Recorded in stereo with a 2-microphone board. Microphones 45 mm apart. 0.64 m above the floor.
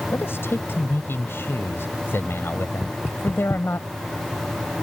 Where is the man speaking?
60° left (ahead or behind).